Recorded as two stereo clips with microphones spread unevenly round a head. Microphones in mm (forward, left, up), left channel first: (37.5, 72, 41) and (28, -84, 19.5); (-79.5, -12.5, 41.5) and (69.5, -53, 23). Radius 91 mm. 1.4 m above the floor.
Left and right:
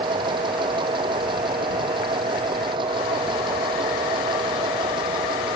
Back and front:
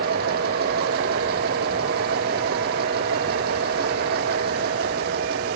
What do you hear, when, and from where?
0.0 s a machine running: 35° right